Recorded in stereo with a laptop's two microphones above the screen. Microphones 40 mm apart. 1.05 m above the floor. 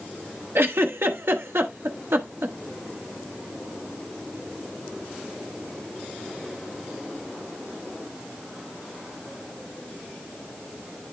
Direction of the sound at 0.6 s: 85° right.